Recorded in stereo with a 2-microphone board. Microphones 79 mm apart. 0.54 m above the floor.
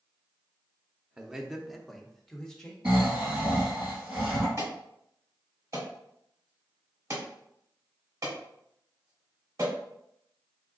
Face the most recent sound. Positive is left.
turn(degrees=-45)  # may be behind; listen again after turning